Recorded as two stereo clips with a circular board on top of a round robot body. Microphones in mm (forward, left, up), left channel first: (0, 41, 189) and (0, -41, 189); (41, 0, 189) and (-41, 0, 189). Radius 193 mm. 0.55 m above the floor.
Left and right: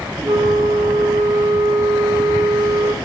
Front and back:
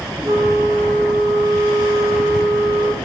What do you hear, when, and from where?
0.2 s a flute: 140° right, 1.9 m